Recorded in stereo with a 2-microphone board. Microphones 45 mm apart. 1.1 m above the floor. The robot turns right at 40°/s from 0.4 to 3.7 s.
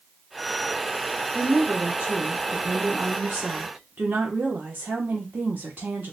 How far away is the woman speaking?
About 0.8 m.